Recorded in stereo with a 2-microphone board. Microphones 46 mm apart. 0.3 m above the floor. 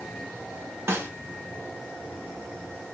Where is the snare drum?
65° right (ahead or behind), 0.9 m.